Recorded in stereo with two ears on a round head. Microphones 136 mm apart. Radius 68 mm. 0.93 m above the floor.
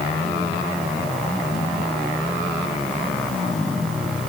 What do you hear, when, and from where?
Only background noise.